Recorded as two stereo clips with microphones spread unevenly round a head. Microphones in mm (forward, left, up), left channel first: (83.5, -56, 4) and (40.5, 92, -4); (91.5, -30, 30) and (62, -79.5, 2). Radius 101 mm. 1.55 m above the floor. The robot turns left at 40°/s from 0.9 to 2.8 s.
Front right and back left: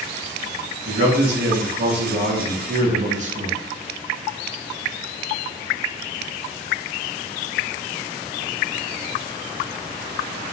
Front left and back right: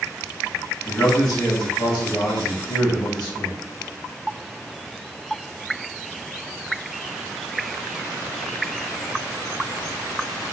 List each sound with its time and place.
0.8 s a man speaking: 140° left, 1.0 m; by 3.6 s 65° left, 1.0 m